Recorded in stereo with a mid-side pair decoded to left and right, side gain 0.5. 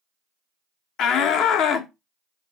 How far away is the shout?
About 1.2 m.